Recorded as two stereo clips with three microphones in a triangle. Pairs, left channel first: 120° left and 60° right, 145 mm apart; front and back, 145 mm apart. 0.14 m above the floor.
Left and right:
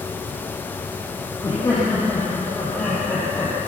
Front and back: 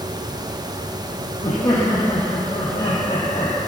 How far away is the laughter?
About 7.5 m.